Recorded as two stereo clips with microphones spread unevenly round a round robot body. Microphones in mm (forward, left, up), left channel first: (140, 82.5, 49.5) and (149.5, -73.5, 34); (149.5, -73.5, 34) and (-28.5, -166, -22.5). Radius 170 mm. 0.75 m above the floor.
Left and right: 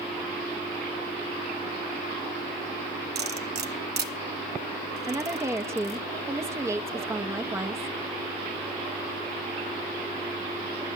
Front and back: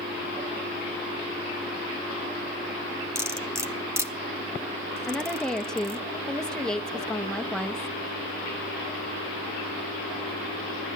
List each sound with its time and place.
3.1 s cutlery clinking: 75° right, 1.5 m
5.1 s a woman speaking: 95° right, 0.7 m